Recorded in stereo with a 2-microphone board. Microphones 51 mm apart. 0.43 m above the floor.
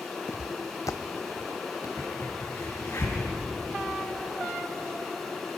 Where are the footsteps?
60° left (ahead or behind), 0.7 m; by 1.9 s 80° left, 1.9 m.